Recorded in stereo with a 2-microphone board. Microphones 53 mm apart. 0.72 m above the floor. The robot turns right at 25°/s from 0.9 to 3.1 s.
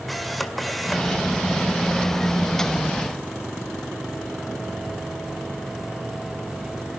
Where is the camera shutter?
Centre (ahead or behind), 2.5 m; by 1.2 s 5° left (ahead or behind), 2.5 m.